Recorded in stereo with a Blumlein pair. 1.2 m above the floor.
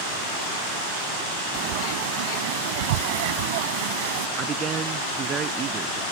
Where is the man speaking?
25° right.